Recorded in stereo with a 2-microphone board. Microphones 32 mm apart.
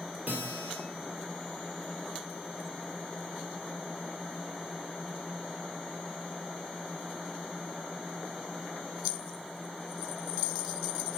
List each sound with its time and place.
0.3 s a guitar: 70° right (ahead or behind), 2 m